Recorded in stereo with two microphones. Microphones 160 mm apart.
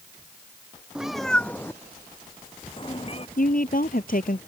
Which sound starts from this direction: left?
A woman speaking, at 3.4 s.